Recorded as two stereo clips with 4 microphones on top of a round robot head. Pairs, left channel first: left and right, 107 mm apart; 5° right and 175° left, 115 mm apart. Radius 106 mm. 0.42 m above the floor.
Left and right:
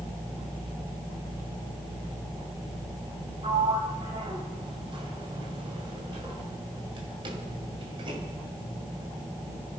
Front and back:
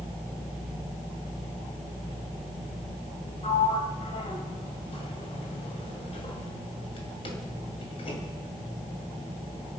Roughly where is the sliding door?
Ahead right.